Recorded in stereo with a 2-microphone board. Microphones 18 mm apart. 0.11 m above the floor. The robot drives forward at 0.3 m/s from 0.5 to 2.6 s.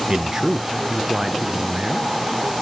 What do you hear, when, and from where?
0.1 s a man speaking: 30° right (ahead or behind), 1.2 m; by 2.6 s 25° right (ahead or behind), 1.4 m